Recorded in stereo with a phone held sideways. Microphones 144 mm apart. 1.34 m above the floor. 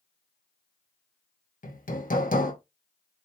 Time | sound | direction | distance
1.6 | hammering | 75° left (ahead or behind) | 1.3 m